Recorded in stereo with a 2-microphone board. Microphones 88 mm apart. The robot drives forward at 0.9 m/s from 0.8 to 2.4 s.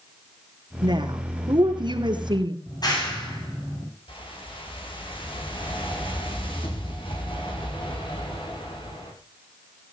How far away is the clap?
About 10 m.